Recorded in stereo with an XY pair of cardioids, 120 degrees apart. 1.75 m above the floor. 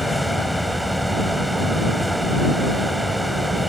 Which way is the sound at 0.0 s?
5° right.